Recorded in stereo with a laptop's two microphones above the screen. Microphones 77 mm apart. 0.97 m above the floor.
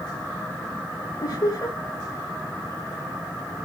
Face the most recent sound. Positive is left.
turn(degrees=50)  # may be behind; listen again after turning